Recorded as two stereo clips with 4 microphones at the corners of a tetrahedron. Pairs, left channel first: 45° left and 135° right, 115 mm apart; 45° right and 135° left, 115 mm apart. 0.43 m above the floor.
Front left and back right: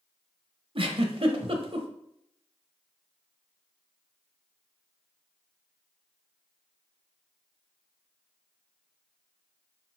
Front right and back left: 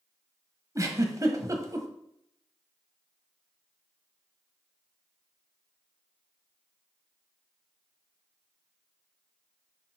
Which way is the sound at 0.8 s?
165° right.